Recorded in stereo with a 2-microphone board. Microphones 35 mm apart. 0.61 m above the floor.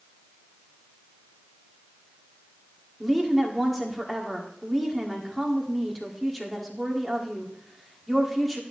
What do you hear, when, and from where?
3.0 s a woman speaking: centre (ahead or behind), 1.5 m